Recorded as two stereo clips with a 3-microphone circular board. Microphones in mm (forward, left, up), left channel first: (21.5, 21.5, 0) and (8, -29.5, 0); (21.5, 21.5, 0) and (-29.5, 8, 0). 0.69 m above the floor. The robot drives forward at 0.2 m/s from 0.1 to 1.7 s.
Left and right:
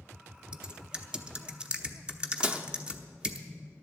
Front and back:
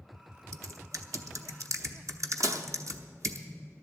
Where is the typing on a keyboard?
175° right, 0.7 m.